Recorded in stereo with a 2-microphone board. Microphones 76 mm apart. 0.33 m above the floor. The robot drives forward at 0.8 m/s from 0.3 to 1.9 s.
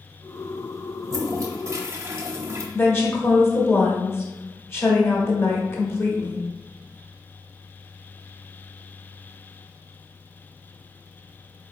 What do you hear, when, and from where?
1.0 s a toilet flushing: 40° right (ahead or behind), 0.7 m; by 2.6 s 35° right (ahead or behind), 0.8 m
2.7 s a woman speaking: 30° left (ahead or behind), 0.9 m